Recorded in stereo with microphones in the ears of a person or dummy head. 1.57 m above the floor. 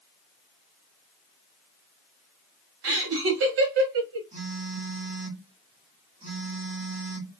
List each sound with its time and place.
2.8 s laughter: 70° right (ahead or behind), 1.2 m
4.3 s a phone buzzing: 40° right (ahead or behind), 1.6 m